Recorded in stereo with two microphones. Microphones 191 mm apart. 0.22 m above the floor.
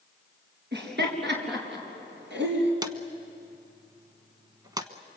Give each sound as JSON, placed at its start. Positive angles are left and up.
{"t": 0.7, "sound": "laughter", "side_deg": -65, "distance_m": 4.0}
{"t": 2.8, "sound": "a drawer", "side_deg": -20, "distance_m": 1.1}